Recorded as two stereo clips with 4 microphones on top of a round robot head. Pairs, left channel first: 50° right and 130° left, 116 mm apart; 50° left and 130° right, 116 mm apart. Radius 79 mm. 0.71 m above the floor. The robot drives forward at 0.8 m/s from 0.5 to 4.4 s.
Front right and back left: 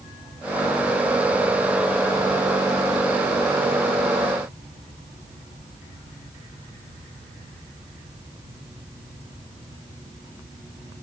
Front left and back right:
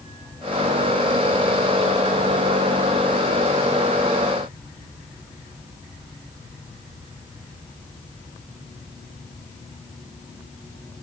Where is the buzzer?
I don't hear a buzzer.